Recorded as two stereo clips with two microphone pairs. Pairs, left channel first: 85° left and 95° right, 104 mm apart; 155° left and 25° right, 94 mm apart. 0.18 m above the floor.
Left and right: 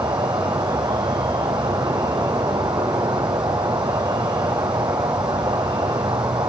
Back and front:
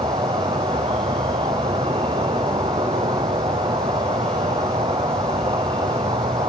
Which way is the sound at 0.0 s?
45° right.